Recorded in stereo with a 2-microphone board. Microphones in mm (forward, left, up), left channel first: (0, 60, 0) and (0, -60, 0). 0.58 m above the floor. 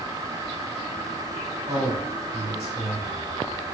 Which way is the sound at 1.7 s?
55° right (ahead or behind).